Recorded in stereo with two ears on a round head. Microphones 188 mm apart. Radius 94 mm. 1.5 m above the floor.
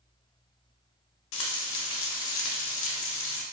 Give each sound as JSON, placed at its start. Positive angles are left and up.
{"t": 1.3, "sound": "frying", "side_deg": 65, "distance_m": 0.6}